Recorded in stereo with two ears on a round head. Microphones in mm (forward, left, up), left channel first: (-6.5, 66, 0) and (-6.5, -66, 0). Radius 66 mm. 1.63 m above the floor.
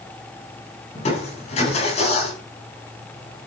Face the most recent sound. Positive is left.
turn(degrees=50)  # may be behind; listen again after turning